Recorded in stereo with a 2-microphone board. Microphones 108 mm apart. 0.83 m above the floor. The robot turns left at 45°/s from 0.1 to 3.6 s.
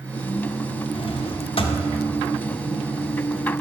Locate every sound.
0.9 s a drawer: 110° left, 0.5 m; by 1.8 s 70° left, 0.5 m